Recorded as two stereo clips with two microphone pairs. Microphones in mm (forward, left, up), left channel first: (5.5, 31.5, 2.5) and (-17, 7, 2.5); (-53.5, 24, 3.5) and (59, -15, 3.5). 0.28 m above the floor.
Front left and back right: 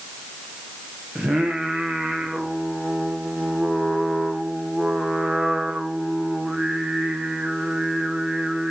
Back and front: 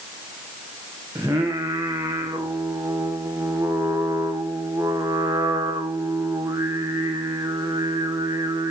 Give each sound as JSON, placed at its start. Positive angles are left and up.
{"t": 1.1, "sound": "singing", "azimuth_deg": -85, "distance_m": 2.5}